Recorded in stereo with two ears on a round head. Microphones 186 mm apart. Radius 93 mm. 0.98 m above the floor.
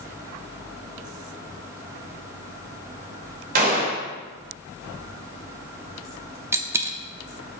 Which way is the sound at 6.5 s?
10° right (ahead or behind).